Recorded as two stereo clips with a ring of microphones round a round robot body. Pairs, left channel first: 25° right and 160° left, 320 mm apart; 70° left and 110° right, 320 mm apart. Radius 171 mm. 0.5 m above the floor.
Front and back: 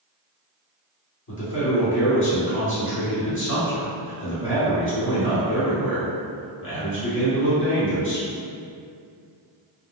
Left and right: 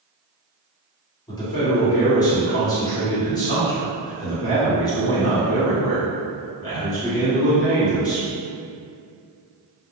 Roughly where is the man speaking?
Ahead.